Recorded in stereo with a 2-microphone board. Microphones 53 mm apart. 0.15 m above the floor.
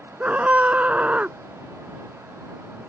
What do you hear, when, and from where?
0.2 s a scream: 30° right (ahead or behind)